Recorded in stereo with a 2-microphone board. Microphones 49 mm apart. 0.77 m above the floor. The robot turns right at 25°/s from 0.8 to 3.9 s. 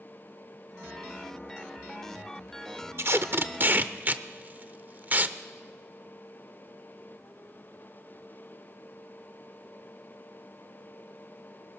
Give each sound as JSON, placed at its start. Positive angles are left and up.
{"t": 3.0, "sound": "tape being pulled", "side_deg": -55, "distance_m": 0.7}